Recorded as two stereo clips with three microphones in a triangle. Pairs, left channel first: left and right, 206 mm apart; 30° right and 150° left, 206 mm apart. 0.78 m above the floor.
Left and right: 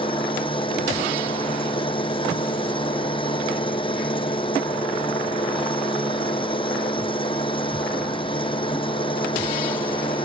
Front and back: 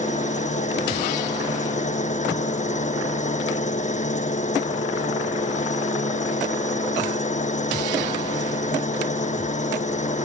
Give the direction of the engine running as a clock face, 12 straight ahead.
11 o'clock.